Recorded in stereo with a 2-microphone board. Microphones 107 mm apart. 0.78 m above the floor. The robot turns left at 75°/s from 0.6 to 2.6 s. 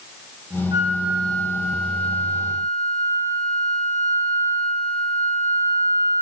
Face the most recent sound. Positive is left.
turn(degrees=70)